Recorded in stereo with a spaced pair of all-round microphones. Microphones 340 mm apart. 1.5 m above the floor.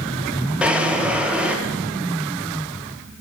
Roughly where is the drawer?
Centre.